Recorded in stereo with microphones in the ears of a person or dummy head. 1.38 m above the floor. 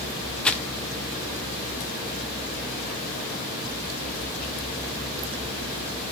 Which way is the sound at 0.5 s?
5° left (ahead or behind).